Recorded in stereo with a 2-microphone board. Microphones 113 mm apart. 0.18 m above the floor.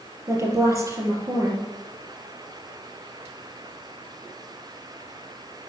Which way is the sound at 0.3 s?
25° right (ahead or behind).